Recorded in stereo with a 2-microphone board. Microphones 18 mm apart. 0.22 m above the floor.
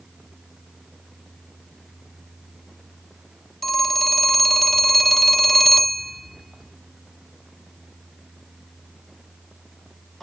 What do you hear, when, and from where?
3.6 s a phone ringing: centre (ahead or behind), 0.7 m